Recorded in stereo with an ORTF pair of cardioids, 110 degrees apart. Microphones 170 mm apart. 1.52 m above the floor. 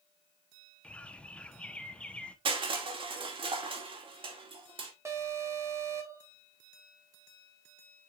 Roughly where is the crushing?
Ahead right.